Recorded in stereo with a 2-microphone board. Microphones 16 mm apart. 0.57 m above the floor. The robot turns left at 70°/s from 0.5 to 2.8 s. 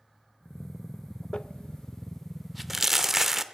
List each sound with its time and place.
1.3 s crumpling: 80° left, 0.6 m; by 3.4 s 15° right (ahead or behind), 0.6 m